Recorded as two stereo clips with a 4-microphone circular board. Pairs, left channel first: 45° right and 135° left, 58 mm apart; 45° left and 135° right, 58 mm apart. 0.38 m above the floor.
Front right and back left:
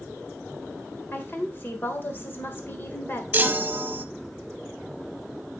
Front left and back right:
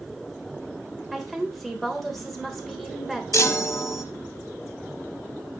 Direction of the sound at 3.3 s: 75° left.